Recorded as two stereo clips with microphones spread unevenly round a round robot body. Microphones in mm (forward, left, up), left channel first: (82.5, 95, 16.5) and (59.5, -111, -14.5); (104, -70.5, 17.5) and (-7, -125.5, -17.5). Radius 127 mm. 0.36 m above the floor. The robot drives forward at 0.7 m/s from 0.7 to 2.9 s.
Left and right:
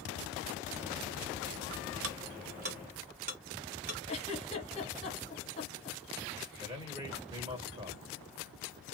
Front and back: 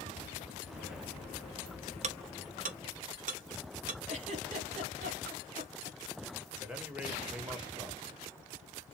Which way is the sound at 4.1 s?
150° left.